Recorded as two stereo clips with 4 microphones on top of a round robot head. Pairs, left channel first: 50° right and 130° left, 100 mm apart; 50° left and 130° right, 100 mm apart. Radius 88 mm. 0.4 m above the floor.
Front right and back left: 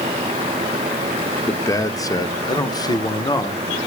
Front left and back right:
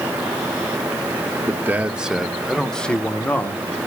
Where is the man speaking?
80° right, 1.1 m; by 3.8 s 15° right, 1.7 m.